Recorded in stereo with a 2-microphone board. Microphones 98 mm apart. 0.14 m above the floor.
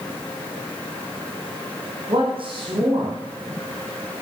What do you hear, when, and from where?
2.1 s a man speaking: 55° right (ahead or behind), 7 m